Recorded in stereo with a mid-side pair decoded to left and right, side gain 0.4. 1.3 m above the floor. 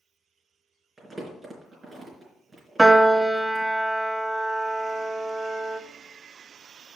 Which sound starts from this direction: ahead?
A piano, at 2.8 s.